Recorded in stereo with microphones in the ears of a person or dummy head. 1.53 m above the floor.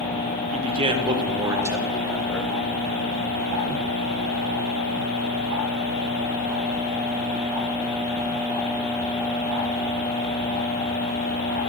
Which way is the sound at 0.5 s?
35° right (ahead or behind).